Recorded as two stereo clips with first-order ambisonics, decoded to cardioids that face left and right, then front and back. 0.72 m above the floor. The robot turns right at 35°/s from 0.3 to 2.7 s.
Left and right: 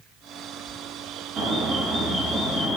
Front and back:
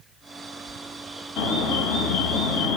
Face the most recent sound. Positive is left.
turn(degrees=10)